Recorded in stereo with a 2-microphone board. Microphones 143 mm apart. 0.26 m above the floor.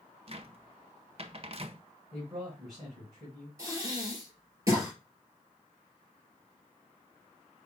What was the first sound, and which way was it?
A cupboard door, 45° right (ahead or behind).